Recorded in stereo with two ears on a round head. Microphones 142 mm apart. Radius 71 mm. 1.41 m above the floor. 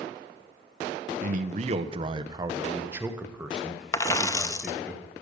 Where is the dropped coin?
20° left (ahead or behind), 0.7 m.